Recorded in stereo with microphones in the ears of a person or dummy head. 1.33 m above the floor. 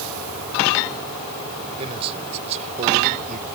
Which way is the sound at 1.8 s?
30° right (ahead or behind).